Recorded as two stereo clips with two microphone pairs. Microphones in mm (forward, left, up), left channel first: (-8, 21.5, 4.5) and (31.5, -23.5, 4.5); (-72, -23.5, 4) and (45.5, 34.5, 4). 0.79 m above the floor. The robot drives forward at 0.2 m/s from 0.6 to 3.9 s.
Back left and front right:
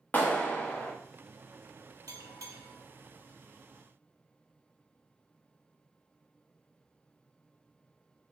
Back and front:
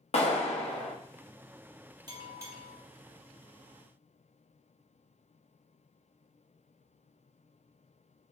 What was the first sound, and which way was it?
A clap, 175° right.